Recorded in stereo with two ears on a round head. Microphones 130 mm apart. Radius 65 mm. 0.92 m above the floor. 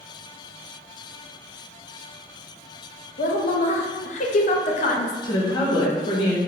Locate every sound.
3.2 s a woman speaking: 55° left (ahead or behind), 0.5 m
5.2 s a woman speaking: 35° left (ahead or behind), 0.8 m